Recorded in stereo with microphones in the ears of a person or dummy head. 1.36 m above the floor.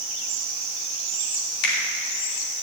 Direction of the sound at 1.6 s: 70° left (ahead or behind).